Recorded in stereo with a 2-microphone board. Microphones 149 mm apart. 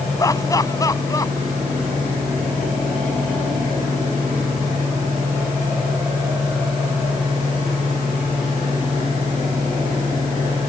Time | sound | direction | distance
0.2 | laughter | 25° left (ahead or behind) | ?